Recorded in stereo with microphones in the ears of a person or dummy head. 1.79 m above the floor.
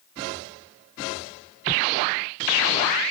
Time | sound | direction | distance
1.7 | a whoosh | 25° left (ahead or behind) | ?